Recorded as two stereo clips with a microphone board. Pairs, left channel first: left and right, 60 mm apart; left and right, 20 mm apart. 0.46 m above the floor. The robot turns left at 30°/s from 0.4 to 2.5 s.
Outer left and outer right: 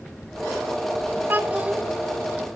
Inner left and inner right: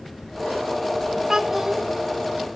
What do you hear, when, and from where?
1.3 s a child speaking: 35° right (ahead or behind), 1.4 m; by 1.8 s 20° right (ahead or behind), 1.4 m